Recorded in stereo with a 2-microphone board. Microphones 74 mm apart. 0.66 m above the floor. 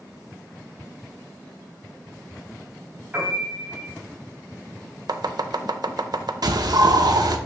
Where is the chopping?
70° right (ahead or behind), 0.6 m.